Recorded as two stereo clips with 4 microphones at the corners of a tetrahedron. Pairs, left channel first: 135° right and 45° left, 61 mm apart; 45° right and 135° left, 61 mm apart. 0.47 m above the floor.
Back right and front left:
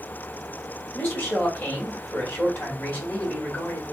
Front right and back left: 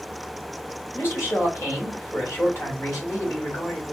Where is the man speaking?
85° right, 1.8 m.